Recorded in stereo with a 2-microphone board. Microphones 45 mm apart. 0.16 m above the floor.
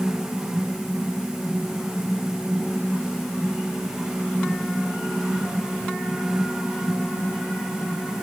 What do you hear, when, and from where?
Only background noise.